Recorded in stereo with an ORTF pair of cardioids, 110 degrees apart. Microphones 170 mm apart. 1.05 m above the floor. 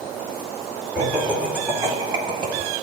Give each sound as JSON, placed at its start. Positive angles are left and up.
{"t": 0.9, "sound": "laughter", "azimuth_deg": -5, "distance_m": 2.5}